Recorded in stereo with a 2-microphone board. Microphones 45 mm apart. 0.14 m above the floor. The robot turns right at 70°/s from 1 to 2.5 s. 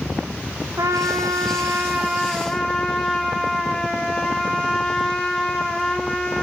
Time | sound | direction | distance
0.8 | a trumpet | 95° right | 3.5 m